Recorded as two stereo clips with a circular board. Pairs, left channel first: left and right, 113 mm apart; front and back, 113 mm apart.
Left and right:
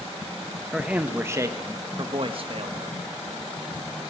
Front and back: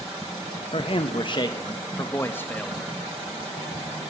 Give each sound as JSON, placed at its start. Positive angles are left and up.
{"t": 0.7, "sound": "a man speaking", "azimuth_deg": -10, "distance_m": 1.3}